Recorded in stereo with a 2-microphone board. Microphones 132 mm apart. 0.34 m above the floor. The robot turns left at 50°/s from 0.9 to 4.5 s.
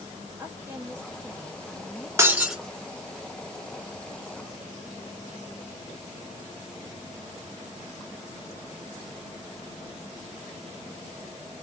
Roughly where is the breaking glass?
Centre.